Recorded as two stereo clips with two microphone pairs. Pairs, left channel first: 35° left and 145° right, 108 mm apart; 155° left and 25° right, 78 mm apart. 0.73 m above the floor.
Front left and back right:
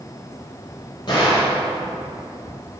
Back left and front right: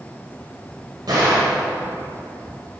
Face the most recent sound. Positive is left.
turn(degrees=-5)